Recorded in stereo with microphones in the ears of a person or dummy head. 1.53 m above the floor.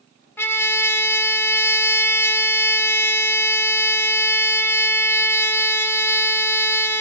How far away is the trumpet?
About 0.6 m.